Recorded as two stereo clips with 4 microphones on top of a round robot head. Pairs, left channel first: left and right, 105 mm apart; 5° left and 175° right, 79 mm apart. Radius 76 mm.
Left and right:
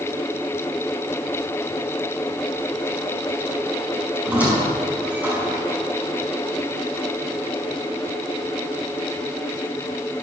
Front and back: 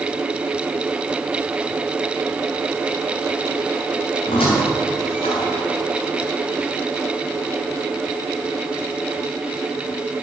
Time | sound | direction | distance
4.2 | a squeak | 15° right | 6.5 m